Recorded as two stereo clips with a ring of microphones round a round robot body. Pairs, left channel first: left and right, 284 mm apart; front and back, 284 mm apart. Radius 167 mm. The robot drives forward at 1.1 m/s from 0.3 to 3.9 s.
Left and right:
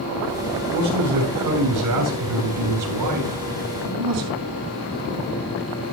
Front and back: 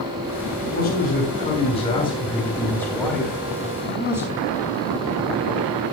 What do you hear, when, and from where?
0.6 s a man speaking: 60° right, 6 m; by 4.4 s 95° right, 5.5 m